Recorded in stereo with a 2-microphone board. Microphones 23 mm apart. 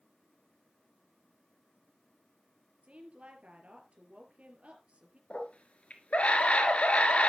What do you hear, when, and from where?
2.8 s a woman speaking: 65° right (ahead or behind), 4 m
5.3 s a scream: 60° left (ahead or behind), 3.5 m